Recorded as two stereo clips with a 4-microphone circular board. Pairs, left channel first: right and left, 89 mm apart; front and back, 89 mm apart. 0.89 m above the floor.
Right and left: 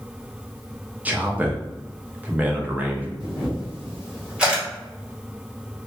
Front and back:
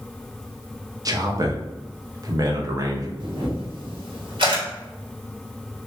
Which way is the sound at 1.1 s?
155° left.